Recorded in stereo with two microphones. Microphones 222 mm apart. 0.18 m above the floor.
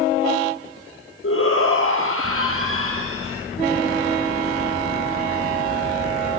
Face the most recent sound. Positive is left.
turn(degrees=65)  # may be behind; listen again after turning